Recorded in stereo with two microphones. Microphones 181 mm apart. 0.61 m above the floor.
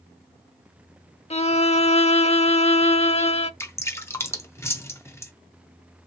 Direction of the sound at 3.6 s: 15° left (ahead or behind).